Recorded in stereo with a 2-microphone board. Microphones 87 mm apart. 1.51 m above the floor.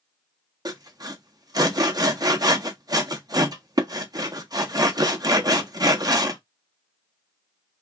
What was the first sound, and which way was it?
Sawing, 45° right (ahead or behind).